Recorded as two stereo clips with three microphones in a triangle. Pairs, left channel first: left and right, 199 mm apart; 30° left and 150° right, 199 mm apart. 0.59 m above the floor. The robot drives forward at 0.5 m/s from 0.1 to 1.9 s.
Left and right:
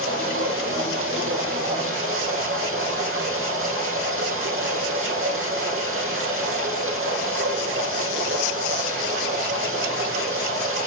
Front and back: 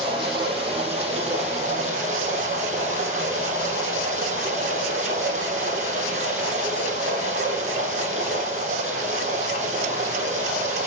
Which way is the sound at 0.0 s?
85° right.